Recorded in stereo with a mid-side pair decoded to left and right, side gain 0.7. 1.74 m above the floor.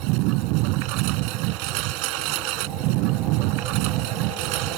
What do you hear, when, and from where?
0.0 s a lawn mower: 70° right